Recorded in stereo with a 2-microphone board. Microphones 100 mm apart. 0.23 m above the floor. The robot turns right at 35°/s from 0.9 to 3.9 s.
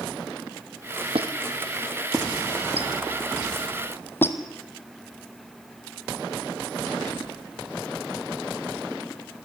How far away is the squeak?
About 1.8 m.